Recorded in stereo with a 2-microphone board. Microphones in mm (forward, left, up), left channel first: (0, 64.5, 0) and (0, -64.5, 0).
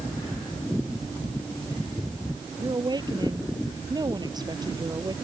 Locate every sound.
2.6 s a woman speaking: 35° right (ahead or behind)